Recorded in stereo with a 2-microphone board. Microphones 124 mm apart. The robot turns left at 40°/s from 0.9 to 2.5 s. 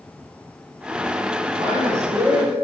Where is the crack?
I don't hear a crack.